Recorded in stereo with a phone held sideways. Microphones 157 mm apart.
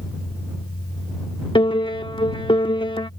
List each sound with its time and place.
0.0 s a fan: 75° left (ahead or behind)
1.6 s a piano: 35° left (ahead or behind)